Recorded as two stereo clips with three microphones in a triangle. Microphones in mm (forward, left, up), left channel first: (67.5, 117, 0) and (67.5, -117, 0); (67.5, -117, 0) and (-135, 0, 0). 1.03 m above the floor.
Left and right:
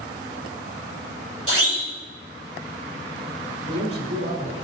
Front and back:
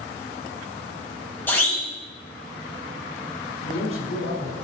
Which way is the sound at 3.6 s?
60° right.